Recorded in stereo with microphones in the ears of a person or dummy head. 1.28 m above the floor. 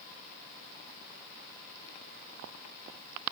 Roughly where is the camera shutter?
I don't hear a camera shutter.